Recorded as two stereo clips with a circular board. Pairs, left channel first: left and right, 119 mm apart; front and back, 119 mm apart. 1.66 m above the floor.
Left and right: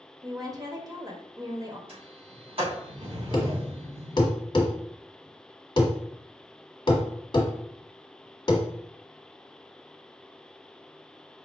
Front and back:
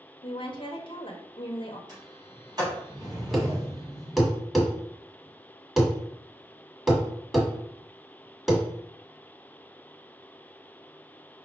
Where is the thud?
95° left, 1.3 m.